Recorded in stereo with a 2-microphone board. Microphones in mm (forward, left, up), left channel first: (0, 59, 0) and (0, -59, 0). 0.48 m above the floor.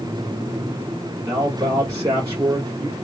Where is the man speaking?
25° right (ahead or behind), 0.9 m.